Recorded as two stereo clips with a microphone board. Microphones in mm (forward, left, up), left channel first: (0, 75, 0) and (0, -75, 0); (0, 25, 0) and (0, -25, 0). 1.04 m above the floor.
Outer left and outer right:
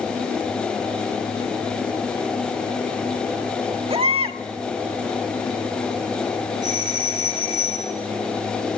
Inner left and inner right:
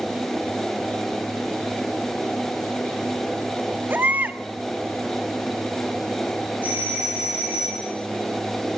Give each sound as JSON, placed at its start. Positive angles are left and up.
{"t": 3.9, "sound": "a baby crying", "side_deg": -40, "distance_m": 1.5}
{"t": 6.6, "sound": "a doorbell", "side_deg": -25, "distance_m": 10.0}